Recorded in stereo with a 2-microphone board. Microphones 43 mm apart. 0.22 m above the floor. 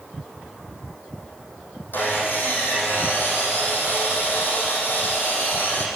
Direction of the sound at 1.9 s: 50° left (ahead or behind).